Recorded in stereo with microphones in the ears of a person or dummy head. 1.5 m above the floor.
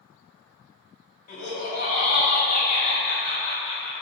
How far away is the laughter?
About 1.4 m.